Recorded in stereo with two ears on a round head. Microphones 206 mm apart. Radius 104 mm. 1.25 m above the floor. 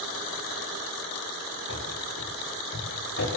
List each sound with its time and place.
1.7 s running footsteps: 60° left (ahead or behind), 9 m; by 3.3 s 50° left (ahead or behind), 9.5 m